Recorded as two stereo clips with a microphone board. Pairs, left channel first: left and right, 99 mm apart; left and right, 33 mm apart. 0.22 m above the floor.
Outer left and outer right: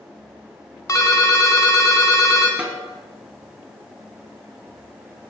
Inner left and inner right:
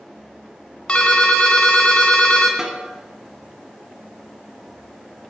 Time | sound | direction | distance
0.9 | a ringtone | 35° left (ahead or behind) | 1.4 m
2.6 | a snare drum | 15° right (ahead or behind) | 1.3 m